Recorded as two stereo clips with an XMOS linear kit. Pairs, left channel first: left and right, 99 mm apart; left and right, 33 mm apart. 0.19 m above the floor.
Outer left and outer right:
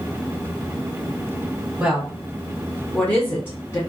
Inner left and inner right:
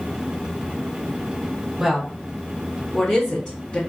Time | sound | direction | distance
1.8 | a woman speaking | 10° right (ahead or behind) | 1.3 m